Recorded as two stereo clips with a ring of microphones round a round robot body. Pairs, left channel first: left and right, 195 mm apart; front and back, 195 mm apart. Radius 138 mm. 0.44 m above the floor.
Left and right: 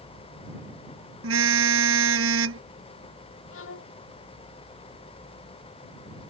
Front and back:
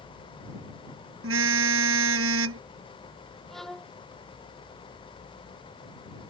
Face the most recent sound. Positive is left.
turn(degrees=90)